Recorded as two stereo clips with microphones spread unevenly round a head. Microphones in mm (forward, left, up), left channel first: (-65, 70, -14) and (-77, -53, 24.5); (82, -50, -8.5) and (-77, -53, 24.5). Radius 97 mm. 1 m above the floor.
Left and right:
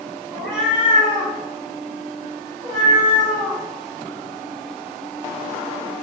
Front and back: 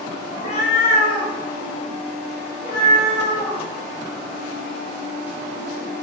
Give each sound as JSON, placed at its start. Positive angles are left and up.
{"t": 0.3, "sound": "a cat meowing", "azimuth_deg": -45, "distance_m": 0.8}